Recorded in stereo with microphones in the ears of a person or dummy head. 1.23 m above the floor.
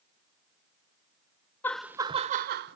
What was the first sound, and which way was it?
Laughter, 15° left (ahead or behind).